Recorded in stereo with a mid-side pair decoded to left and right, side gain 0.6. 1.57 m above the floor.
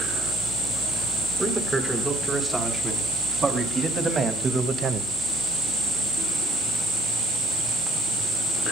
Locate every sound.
1.4 s a man speaking: 15° right, 5.5 m; by 5.1 s 45° right, 1.5 m